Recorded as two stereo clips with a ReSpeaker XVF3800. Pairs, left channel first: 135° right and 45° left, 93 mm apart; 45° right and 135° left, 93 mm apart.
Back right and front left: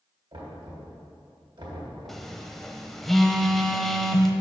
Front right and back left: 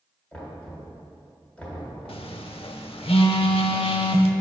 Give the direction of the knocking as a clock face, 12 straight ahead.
11 o'clock.